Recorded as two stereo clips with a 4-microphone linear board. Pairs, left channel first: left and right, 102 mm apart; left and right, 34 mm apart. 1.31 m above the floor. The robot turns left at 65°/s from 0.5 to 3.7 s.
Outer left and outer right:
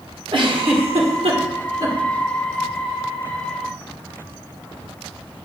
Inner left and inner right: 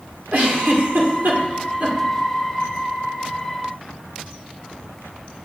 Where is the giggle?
55° right (ahead or behind), 1.5 m; by 2.0 s 30° right (ahead or behind), 1.5 m.